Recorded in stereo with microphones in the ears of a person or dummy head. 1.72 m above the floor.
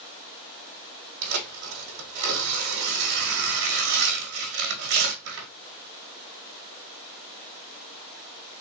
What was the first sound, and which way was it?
Tearing paper, 60° right (ahead or behind).